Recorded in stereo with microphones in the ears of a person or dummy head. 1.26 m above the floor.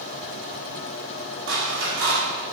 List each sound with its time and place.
1.5 s scissors: 85° right, 2.5 m